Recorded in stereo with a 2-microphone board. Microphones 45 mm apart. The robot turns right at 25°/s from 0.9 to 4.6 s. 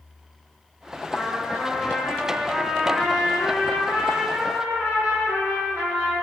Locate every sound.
1.1 s a trumpet: 155° left, 1.1 m; by 6.2 s 115° right, 1.1 m